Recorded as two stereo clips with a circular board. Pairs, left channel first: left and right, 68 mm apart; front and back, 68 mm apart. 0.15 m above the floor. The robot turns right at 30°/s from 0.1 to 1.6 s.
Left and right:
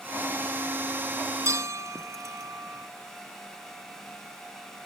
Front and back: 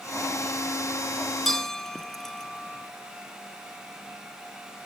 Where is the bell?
85° right; by 2.9 s 80° right.